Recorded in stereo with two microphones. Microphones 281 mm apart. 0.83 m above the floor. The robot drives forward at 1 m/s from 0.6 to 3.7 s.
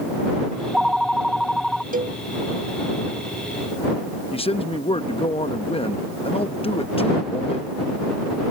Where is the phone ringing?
Centre (ahead or behind).